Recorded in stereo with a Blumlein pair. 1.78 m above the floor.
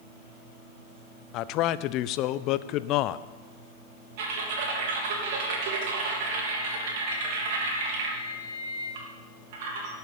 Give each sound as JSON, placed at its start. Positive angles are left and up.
{"t": 1.3, "sound": "a man speaking", "azimuth_deg": 40, "distance_m": 0.5}
{"t": 4.2, "sound": "typing on a keyboard", "azimuth_deg": -50, "distance_m": 3.0}